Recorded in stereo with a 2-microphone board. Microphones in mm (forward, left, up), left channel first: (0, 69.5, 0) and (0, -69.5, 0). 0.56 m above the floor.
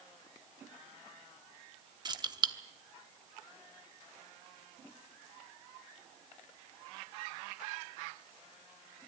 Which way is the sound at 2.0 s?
30° right (ahead or behind).